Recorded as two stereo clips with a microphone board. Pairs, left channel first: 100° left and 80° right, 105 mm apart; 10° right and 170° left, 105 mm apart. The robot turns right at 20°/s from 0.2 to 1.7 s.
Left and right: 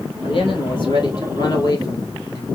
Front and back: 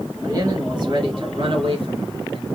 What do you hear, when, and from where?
0.2 s a man speaking: 120° left, 2 m; by 2.5 s 150° left, 2 m